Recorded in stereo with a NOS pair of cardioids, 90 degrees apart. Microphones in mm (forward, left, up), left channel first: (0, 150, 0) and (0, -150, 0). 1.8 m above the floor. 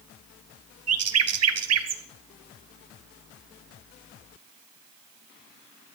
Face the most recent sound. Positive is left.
turn(degrees=-55)